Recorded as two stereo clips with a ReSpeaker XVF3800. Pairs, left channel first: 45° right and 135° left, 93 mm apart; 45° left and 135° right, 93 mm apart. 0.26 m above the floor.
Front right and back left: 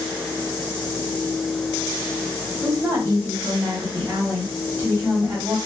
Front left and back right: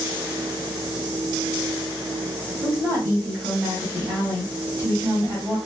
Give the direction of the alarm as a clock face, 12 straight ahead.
I don't hear an alarm.